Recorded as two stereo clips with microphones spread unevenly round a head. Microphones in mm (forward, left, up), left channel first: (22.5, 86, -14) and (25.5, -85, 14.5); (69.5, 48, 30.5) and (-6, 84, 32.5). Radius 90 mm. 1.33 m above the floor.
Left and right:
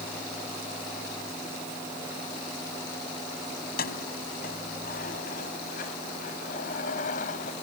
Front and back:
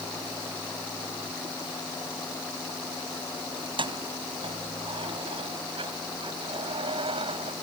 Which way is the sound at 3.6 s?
135° left.